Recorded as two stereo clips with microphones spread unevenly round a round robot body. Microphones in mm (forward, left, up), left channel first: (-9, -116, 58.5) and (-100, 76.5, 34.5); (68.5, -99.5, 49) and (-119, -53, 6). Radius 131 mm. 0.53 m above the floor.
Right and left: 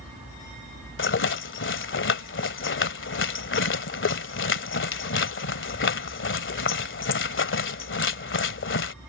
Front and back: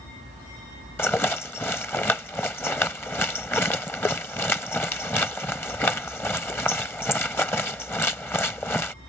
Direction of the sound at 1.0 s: 95° right.